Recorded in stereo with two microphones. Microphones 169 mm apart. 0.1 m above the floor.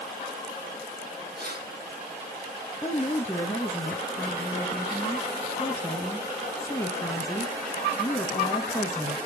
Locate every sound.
1.4 s keys jangling: 70° right (ahead or behind), 3.5 m; by 3.3 s 45° right (ahead or behind), 5 m
2.8 s a woman speaking: 15° left (ahead or behind), 1.6 m